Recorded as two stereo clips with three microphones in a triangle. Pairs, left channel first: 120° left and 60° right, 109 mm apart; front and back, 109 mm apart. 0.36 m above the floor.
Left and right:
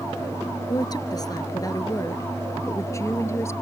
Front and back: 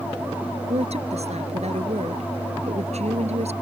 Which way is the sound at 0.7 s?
170° left.